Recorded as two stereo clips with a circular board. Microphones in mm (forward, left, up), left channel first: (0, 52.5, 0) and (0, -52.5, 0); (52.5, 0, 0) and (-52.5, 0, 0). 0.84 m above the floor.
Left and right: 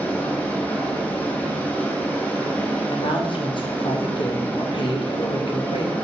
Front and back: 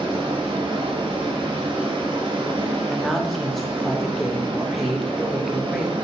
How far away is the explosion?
No explosion in this recording.